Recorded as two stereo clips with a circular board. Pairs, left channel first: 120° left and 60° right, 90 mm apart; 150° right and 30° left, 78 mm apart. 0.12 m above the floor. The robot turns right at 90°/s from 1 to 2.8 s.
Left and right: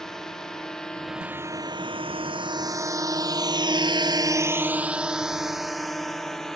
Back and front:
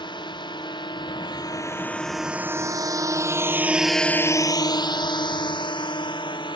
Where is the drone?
155° right.